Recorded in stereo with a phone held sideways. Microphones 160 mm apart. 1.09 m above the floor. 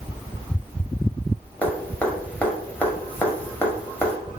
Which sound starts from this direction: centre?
Dripping, at 1.6 s.